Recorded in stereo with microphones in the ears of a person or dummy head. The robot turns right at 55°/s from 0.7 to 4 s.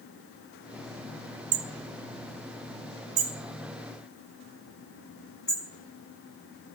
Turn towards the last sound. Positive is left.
turn(degrees=25)  # may be behind; listen again after turning